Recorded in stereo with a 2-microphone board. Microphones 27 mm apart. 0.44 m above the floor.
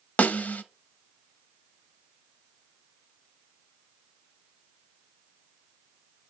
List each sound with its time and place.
0.2 s a snare drum: 85° left, 0.7 m